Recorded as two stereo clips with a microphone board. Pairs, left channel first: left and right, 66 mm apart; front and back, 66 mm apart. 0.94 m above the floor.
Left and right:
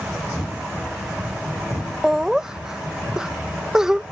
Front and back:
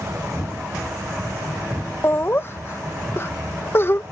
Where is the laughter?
15° right.